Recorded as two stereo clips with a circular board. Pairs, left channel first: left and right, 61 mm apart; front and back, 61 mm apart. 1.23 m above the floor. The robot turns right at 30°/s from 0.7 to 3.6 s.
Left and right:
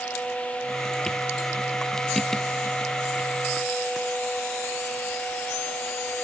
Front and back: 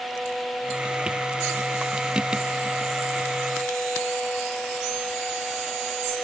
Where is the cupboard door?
I don't hear a cupboard door.